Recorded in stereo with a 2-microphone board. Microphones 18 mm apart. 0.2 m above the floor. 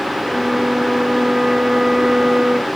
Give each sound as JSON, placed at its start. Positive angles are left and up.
{"t": 0.2, "sound": "a flute", "side_deg": -50}